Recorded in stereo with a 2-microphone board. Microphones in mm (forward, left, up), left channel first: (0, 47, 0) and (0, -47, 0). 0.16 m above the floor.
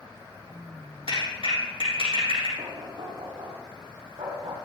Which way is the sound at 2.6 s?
75° right (ahead or behind).